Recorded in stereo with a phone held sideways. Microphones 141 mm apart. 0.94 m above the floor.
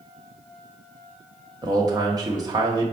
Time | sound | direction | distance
1.6 | a man speaking | 30° right (ahead or behind) | 0.8 m